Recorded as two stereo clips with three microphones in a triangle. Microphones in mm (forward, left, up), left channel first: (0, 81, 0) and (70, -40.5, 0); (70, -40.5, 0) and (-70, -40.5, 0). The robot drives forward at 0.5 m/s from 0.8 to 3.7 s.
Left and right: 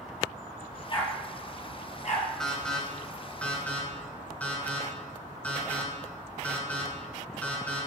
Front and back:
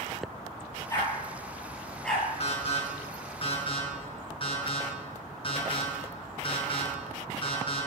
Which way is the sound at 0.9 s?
70° left.